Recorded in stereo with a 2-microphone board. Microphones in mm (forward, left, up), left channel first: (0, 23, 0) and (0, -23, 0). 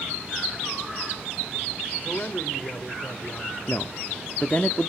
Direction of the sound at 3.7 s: 30° left (ahead or behind).